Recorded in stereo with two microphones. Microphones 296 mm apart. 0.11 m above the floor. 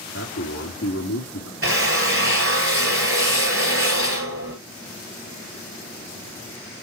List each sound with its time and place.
0.1 s a man speaking: 55° left (ahead or behind), 5 m
1.6 s a drill: 45° right (ahead or behind), 1.8 m